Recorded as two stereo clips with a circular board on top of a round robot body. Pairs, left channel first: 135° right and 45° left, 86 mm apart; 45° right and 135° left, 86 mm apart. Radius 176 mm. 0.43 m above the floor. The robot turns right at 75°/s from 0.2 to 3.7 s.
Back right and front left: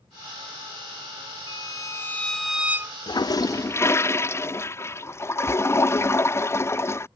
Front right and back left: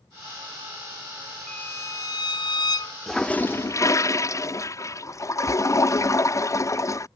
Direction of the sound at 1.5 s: 120° right.